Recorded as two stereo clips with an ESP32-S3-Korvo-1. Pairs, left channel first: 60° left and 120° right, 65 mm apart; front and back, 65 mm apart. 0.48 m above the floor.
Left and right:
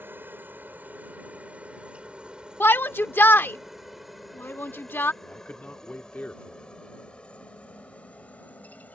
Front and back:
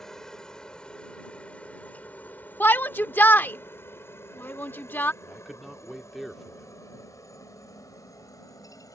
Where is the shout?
35° left.